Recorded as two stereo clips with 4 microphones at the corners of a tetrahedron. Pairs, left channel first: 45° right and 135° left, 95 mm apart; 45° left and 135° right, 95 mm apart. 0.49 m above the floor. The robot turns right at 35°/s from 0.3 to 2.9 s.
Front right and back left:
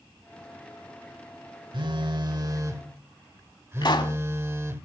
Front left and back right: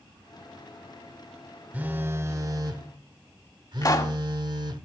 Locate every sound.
1.7 s a phone buzzing: 150° left, 1.1 m; by 4.8 s 165° right, 1.1 m
3.8 s a pop: 5° right, 1.6 m